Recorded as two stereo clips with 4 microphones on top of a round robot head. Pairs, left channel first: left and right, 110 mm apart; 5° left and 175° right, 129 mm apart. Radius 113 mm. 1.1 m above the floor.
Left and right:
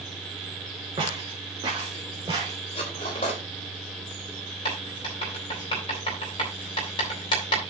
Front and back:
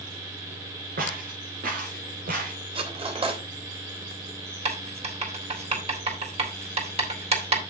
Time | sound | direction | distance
1.0 | footsteps | 150° right | 5.5 m
2.8 | cutlery clinking | 140° left | 3 m
4.7 | writing | 145° left | 5 m